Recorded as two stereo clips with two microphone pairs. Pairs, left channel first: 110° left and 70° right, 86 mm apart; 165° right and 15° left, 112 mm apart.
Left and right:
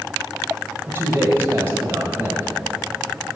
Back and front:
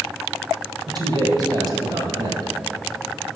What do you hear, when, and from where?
0.9 s a man speaking: 20° right, 1.6 m